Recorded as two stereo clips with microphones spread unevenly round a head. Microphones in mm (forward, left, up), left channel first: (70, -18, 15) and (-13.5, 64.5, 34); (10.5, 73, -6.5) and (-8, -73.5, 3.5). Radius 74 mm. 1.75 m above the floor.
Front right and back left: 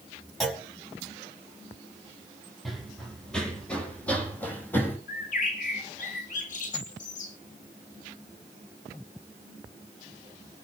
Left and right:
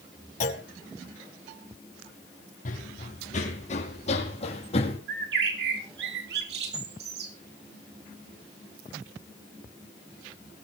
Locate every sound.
0.4 s a clunk: 45° left, 5 m
2.6 s running footsteps: 50° left, 4 m; by 5.0 s 30° left, 5.5 m
5.1 s a bird: 75° right, 4 m